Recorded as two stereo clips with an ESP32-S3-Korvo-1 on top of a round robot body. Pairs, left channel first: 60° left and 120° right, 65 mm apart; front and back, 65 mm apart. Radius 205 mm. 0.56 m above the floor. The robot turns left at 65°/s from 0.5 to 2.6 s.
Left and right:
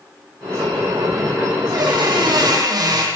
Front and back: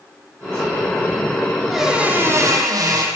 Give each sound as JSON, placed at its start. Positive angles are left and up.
{"t": 1.7, "sound": "a squeak", "azimuth_deg": -90, "distance_m": 6.5}